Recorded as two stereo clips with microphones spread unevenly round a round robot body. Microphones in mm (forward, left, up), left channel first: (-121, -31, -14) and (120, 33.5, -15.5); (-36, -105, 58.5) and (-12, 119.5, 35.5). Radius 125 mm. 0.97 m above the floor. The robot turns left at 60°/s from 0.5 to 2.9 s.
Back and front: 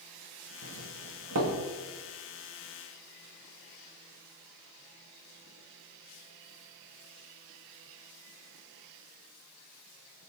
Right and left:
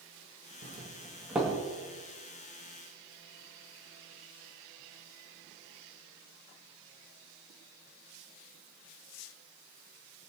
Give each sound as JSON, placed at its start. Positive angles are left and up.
{"t": 0.6, "sound": "a doorbell", "azimuth_deg": 45, "distance_m": 2.0}